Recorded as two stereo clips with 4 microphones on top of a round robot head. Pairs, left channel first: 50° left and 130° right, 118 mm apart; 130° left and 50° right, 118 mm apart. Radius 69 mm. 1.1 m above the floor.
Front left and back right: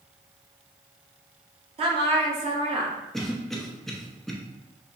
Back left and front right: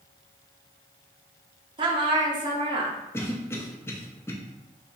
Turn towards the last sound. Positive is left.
turn(degrees=135)